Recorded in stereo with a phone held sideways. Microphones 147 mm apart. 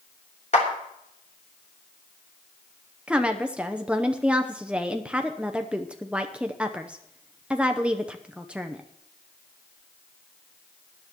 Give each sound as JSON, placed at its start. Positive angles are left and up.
{"t": 0.5, "sound": "a clap", "side_deg": 50, "distance_m": 3.5}
{"t": 3.1, "sound": "a woman speaking", "side_deg": -5, "distance_m": 0.7}